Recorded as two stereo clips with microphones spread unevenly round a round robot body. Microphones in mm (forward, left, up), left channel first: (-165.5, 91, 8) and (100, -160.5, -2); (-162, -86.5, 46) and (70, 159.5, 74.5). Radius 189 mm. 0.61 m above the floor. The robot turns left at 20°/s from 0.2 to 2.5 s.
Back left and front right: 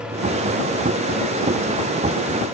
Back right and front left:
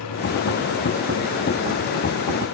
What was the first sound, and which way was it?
Only background noise.